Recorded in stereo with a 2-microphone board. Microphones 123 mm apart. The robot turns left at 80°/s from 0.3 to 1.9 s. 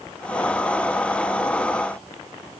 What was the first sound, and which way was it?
Only background noise.